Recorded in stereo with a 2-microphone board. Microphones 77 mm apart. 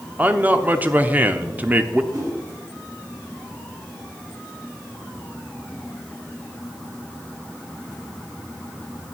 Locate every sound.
0.2 s a man speaking: 20° right (ahead or behind), 0.7 m
2.1 s a whoosh: 50° right (ahead or behind), 3.5 m